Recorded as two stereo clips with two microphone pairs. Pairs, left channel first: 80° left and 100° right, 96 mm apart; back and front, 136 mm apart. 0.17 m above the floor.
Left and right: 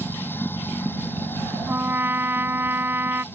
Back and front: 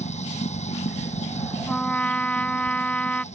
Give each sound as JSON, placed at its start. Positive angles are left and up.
{"t": 0.0, "sound": "running water", "azimuth_deg": 150}
{"t": 1.7, "sound": "a trumpet", "azimuth_deg": -115}